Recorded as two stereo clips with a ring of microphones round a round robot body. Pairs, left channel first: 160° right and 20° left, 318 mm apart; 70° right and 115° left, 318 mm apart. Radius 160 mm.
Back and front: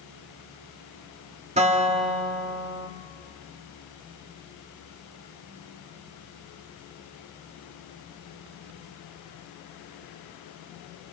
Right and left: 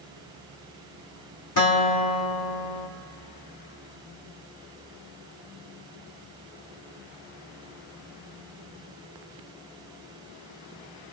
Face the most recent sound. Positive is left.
turn(degrees=-45)